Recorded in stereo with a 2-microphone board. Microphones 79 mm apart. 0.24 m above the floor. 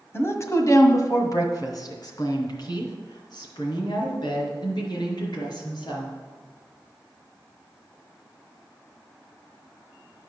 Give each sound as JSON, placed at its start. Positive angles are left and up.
{"t": 0.1, "sound": "a woman speaking", "side_deg": 35, "distance_m": 1.4}